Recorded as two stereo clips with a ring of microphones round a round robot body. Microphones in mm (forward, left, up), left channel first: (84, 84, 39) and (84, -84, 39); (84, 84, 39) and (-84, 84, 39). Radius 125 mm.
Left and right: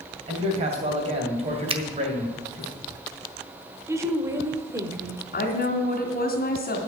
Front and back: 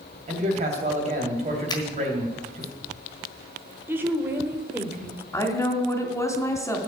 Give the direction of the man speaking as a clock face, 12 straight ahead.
5 o'clock.